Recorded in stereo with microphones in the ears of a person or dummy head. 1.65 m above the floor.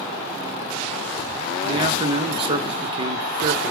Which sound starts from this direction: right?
A man speaking, at 1.6 s.